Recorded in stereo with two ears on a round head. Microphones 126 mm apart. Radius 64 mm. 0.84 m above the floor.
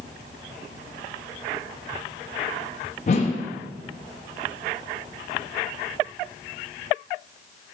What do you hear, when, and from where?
3.1 s a whoosh: 50° left (ahead or behind), 0.5 m